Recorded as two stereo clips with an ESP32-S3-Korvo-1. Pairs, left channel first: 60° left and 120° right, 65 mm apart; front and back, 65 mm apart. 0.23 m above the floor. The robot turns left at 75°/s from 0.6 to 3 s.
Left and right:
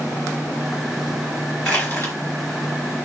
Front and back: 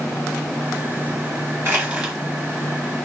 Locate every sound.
1.6 s crushing: 130° left, 3.5 m; by 2.1 s 95° left, 3.5 m